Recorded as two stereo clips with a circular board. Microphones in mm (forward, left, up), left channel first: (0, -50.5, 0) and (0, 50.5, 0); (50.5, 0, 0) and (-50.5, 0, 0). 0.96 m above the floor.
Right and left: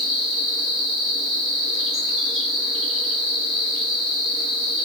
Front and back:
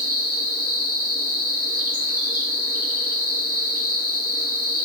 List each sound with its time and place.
0.0 s an insect: 25° left, 1.5 m